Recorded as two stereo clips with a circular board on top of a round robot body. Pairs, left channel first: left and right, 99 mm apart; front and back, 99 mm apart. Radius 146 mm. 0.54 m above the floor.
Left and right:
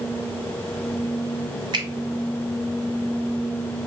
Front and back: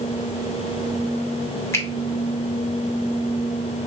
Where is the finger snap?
60° right, 1.9 m.